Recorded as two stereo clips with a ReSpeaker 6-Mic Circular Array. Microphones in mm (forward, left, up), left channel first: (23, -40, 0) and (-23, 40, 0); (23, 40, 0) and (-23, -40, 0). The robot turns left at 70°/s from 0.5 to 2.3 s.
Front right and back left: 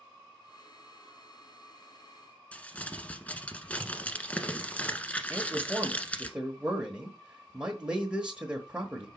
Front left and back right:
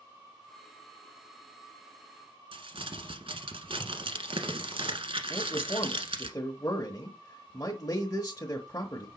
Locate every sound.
2.5 s crumpling: 135° right, 1.2 m
5.3 s a man speaking: 50° left, 1.0 m